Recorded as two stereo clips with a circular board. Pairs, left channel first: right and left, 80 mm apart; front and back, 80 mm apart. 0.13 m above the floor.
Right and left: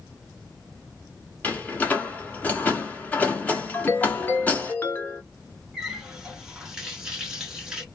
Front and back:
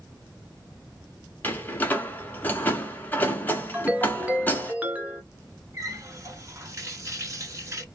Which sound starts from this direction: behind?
A running tap, at 5.7 s.